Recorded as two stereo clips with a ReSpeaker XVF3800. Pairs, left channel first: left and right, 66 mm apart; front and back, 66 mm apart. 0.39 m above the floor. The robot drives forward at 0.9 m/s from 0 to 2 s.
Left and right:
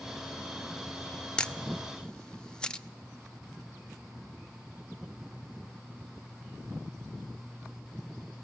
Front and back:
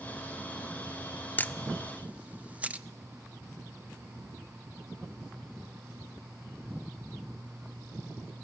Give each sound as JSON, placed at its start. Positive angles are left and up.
{"t": 1.4, "sound": "a camera shutter", "azimuth_deg": 25, "distance_m": 0.7}